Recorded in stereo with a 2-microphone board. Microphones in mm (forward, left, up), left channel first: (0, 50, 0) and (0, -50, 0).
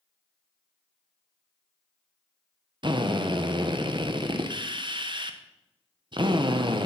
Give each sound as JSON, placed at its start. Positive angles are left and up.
{"t": 2.8, "sound": "a drill", "side_deg": -50, "distance_m": 1.0}